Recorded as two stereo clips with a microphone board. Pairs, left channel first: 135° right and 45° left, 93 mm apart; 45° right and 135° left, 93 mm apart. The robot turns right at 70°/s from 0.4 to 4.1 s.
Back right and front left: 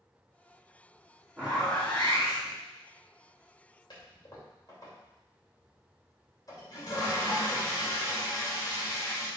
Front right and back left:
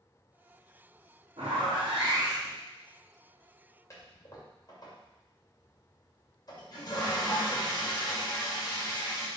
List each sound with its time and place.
1.4 s a zipper: 120° left, 2.5 m; by 2.5 s 155° right, 2.5 m
3.9 s a toilet flushing: 100° right, 2.5 m; by 9.3 s 85° right, 2.5 m